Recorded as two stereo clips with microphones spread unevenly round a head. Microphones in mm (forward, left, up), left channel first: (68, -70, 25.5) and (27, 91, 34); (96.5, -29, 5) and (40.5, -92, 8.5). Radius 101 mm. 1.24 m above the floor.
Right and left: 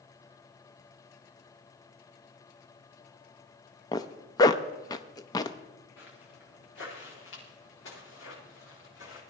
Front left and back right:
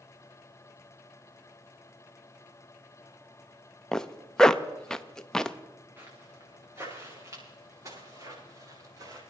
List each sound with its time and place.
3.9 s a zipper: 30° right, 0.5 m
6.0 s footsteps: 70° right, 6 m; by 9.2 s 90° right, 10 m